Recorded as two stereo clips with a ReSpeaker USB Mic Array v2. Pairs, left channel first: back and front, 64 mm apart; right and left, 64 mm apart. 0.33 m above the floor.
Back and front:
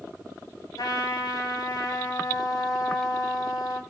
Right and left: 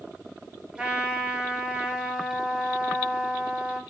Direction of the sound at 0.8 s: 165° left.